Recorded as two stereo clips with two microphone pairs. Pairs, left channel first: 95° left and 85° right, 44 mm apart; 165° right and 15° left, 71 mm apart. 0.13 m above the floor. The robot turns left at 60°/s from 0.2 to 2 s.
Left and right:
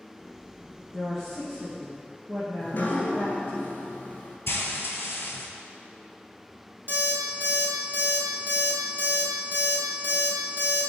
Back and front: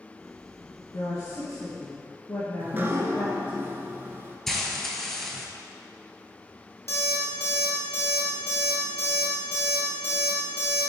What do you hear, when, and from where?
0.9 s a woman speaking: 155° right, 1.5 m; by 3.6 s 140° left, 1.5 m
2.6 s dripping: 65° left, 0.5 m
4.5 s frying: 105° left, 0.5 m
6.9 s an alarm clock: 125° right, 1.5 m